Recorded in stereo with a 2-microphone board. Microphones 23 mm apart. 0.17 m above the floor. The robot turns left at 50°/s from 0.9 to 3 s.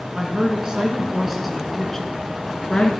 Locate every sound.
0.1 s a woman speaking: 145° right, 2.5 m; by 2.9 s 115° left, 2.5 m